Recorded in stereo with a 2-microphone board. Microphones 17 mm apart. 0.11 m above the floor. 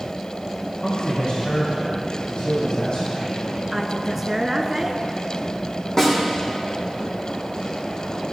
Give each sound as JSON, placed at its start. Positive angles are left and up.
{"t": 0.8, "sound": "a man speaking", "side_deg": 65, "distance_m": 5.0}
{"t": 3.7, "sound": "a woman speaking", "side_deg": -20, "distance_m": 1.1}
{"t": 6.0, "sound": "a snare drum", "side_deg": 30, "distance_m": 4.5}